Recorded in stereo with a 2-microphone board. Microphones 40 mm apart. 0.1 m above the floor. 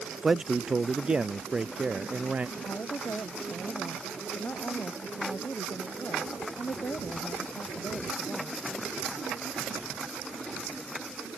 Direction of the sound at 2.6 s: 55° left (ahead or behind).